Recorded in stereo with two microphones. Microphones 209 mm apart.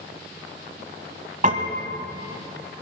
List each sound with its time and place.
1.4 s a piano: 40° right (ahead or behind), 1.3 m